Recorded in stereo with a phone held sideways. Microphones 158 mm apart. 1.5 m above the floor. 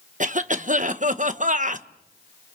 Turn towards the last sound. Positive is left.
turn(degrees=-55)  # may be behind; listen again after turning